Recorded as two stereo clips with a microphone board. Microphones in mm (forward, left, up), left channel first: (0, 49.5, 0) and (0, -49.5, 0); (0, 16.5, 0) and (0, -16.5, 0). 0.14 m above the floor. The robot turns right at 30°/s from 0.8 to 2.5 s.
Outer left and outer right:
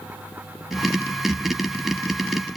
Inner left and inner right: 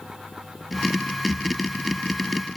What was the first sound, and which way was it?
Only background noise.